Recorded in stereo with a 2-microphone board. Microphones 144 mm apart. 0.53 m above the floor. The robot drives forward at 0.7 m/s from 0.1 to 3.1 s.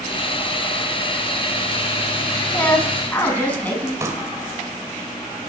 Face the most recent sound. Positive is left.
turn(degrees=-20)  # may be behind; listen again after turning